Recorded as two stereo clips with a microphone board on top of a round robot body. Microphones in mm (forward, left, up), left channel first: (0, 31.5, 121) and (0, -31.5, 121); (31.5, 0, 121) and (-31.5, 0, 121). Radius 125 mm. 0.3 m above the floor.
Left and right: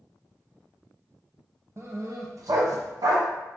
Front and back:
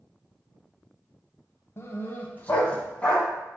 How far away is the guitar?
I don't hear a guitar.